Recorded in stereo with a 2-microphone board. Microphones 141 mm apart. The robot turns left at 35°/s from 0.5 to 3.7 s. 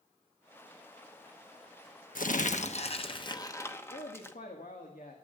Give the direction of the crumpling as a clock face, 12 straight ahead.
10 o'clock.